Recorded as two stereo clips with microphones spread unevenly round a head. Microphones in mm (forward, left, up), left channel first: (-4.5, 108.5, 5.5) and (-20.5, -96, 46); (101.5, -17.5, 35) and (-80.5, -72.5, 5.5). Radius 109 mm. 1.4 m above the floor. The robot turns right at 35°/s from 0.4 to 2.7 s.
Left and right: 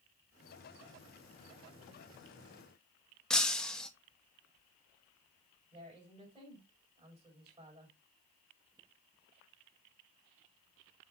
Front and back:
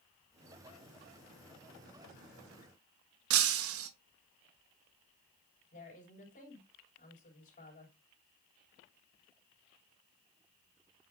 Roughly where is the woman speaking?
Ahead right.